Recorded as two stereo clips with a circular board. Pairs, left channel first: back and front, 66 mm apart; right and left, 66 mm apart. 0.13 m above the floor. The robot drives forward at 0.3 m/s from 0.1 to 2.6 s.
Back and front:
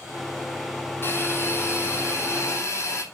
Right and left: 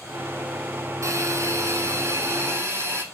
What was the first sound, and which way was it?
A hiss, 125° left.